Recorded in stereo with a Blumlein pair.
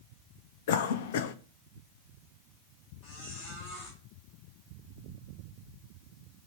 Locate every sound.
0.7 s a cough: 55° left, 0.6 m
3.0 s a squeak: 45° left, 3 m